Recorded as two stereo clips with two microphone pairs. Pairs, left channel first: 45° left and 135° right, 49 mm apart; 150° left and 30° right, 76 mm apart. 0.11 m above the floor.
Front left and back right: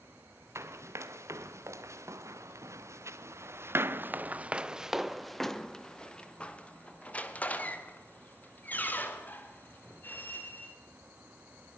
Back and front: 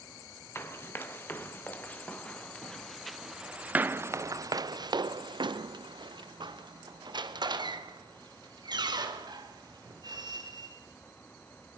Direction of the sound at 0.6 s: 150° right.